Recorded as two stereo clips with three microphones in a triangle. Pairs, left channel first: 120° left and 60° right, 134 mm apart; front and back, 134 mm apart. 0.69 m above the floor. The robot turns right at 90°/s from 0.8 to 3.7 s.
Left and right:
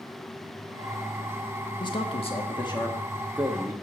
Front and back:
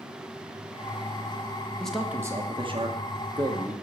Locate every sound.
1.8 s a man speaking: 80° left, 1.3 m; by 3.7 s 110° right, 1.3 m